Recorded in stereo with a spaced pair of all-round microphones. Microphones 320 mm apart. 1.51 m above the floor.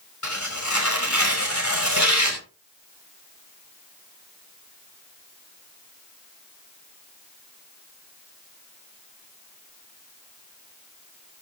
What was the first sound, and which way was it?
Tearing paper, 60° left (ahead or behind).